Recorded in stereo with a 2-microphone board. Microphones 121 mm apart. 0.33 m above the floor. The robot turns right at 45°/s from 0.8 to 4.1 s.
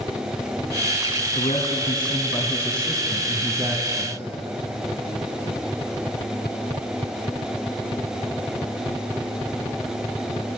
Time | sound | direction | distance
1.4 | a man speaking | 100° left | 2.5 m